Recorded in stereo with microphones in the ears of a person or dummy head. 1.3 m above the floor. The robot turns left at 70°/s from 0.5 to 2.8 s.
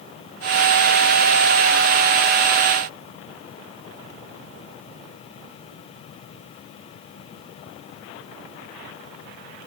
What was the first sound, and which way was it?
Only background noise.